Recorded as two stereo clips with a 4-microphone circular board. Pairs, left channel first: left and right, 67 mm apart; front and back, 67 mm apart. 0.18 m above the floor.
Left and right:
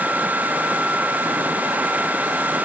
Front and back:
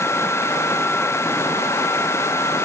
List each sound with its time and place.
Only background noise.